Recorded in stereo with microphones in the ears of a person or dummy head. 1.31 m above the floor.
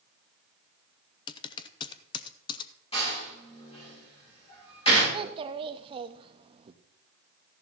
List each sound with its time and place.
1.3 s typing on a keyboard: 25° left (ahead or behind), 0.5 m
2.9 s a door slam: 30° left (ahead or behind), 5 m
5.1 s a child speaking: 30° right (ahead or behind), 0.9 m